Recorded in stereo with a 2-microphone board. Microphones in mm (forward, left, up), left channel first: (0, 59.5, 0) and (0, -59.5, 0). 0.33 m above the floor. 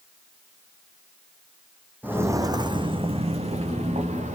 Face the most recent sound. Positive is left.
turn(degrees=-75)  # may be behind; listen again after turning